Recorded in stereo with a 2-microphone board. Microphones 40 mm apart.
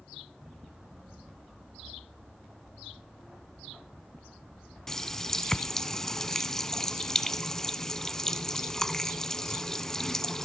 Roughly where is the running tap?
Centre.